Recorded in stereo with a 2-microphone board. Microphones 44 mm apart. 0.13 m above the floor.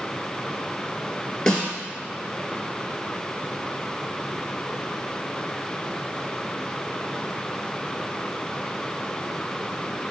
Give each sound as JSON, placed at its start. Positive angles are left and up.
{"t": 1.5, "sound": "a snare drum", "side_deg": 15, "distance_m": 1.4}